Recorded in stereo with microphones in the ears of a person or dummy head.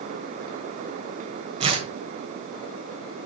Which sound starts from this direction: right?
Tearing paper, at 1.6 s.